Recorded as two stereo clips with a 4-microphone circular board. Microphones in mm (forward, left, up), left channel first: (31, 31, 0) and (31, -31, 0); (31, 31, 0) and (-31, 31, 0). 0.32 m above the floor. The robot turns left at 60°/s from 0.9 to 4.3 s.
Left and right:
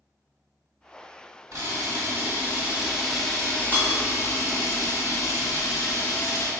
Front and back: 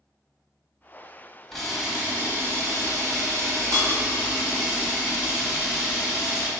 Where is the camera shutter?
85° right, 1.5 m; by 6.5 s 110° left, 1.5 m.